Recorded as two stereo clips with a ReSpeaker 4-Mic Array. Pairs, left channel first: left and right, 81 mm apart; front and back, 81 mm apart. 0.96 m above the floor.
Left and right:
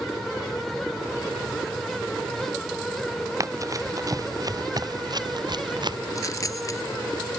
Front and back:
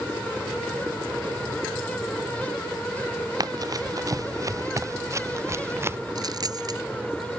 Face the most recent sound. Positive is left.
turn(degrees=140)